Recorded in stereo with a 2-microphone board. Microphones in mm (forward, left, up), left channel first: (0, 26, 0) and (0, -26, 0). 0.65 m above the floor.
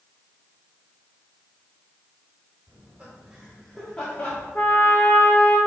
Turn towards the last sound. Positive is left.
turn(degrees=35)  # may be behind; listen again after turning